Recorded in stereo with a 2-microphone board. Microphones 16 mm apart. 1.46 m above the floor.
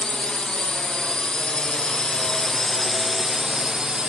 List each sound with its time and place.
0.0 s a drone: 75° left (ahead or behind); by 4.1 s 45° right (ahead or behind)